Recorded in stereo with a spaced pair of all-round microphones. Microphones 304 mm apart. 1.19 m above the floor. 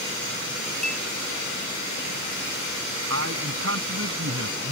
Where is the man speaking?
45° right (ahead or behind).